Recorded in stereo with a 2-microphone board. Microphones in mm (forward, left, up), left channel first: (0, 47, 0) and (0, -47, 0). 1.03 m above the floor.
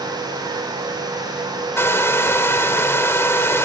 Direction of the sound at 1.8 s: 30° left (ahead or behind).